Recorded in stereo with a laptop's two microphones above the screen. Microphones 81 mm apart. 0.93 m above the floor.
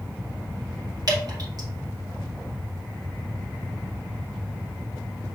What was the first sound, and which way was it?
Dripping, 55° right (ahead or behind).